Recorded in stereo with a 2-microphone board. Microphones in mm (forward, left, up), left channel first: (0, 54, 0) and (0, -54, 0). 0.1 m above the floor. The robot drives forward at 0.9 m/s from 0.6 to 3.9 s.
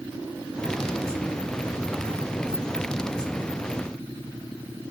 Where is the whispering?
I don't hear whispering.